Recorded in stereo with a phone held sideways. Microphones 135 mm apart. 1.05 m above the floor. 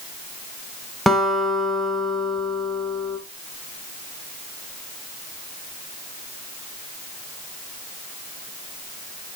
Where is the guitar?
Centre (ahead or behind), 1.2 m.